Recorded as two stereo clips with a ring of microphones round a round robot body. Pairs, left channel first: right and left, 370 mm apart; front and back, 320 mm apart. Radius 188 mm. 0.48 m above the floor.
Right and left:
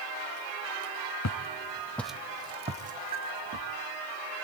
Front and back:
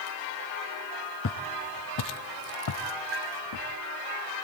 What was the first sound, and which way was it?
Footsteps, 50° right.